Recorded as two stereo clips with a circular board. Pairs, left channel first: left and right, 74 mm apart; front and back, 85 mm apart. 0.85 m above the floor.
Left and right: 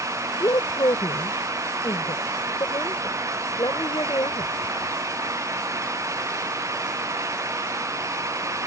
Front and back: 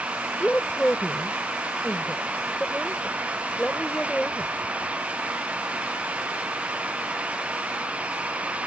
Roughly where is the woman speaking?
Left.